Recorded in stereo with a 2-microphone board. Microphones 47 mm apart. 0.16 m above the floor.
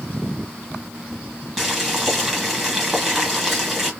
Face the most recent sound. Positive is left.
turn(degrees=0)  # may be behind; listen again after turning